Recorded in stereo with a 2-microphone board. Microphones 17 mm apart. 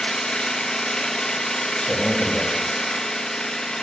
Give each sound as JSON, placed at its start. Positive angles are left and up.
{"t": 0.0, "sound": "an engine running", "side_deg": 70, "distance_m": 0.9}
{"t": 1.8, "sound": "a man speaking", "side_deg": 80, "distance_m": 1.5}